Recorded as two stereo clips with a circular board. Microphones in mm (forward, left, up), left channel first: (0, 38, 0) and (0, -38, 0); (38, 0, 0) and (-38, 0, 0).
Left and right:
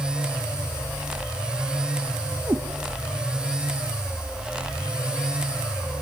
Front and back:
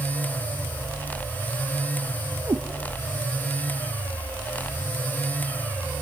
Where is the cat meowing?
140° right, 1.9 m.